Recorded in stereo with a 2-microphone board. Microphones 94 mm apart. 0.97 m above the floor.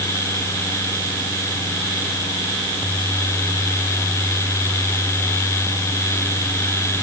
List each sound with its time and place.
Only background noise.